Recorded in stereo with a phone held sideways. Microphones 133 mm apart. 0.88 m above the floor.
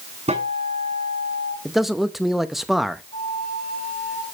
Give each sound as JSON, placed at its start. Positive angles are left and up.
{"t": 0.3, "sound": "a guitar", "side_deg": -55, "distance_m": 7.0}
{"t": 1.6, "sound": "a man speaking", "side_deg": 0, "distance_m": 0.7}
{"t": 3.1, "sound": "a flute", "side_deg": 75, "distance_m": 4.5}